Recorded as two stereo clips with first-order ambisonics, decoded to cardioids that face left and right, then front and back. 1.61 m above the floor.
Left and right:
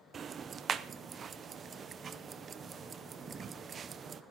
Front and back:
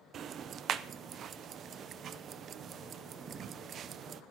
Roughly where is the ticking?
Behind right.